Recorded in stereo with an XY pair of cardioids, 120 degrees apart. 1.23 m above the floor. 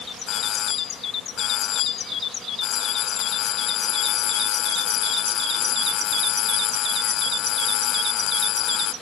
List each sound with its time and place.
0.3 s a doorbell: 65° left